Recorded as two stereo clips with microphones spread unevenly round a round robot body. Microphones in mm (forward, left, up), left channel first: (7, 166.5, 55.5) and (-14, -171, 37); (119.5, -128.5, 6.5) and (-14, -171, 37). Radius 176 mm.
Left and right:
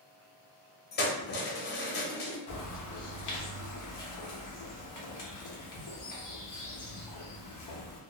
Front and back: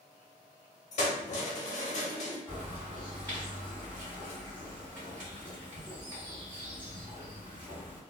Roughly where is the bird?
Behind left.